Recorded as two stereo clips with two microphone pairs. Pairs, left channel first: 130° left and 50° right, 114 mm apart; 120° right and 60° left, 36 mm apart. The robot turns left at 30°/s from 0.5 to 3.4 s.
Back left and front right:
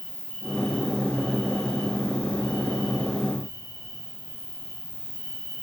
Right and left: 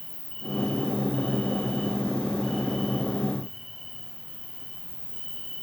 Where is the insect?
130° right, 2.5 m; by 5.6 s 145° left, 2.5 m.